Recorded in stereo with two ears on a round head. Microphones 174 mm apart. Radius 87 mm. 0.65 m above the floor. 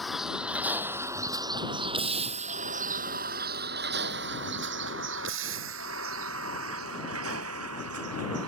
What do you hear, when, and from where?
0.0 s a vehicle: centre (ahead or behind); by 8.5 s 90° right